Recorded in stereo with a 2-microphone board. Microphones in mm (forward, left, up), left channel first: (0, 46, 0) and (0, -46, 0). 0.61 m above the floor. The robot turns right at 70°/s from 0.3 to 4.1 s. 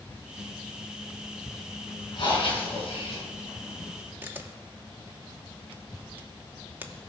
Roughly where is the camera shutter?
Right.